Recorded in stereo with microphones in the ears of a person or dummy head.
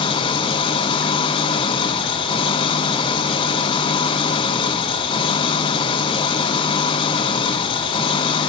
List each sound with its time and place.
0.0 s an engine running: 30° left (ahead or behind), 1.3 m